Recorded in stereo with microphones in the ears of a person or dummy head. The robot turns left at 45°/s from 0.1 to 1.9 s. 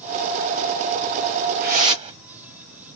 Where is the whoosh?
50° right (ahead or behind), 1.2 m; by 2.2 s 35° right (ahead or behind), 1.2 m.